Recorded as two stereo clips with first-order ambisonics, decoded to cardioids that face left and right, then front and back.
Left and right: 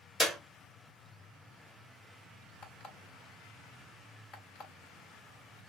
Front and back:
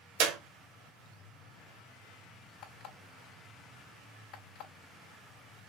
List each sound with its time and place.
0.2 s a clap: 175° left, 1.3 m
2.6 s an alarm clock: 55° left, 3 m